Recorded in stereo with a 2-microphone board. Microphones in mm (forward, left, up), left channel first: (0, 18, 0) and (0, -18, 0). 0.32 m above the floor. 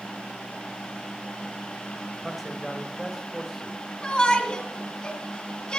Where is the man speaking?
5° right (ahead or behind), 1.2 m.